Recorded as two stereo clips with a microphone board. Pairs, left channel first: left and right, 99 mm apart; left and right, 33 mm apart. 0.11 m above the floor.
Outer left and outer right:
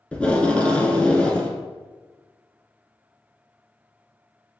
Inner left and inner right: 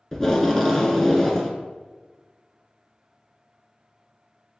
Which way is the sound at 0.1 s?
10° left (ahead or behind).